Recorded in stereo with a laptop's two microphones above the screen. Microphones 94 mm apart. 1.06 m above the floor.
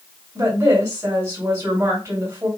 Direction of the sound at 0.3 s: 35° right (ahead or behind).